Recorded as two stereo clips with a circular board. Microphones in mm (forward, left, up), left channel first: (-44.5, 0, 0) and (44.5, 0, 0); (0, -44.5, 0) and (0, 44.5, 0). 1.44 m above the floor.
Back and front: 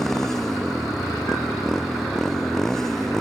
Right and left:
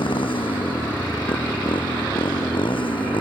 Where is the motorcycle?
95° right.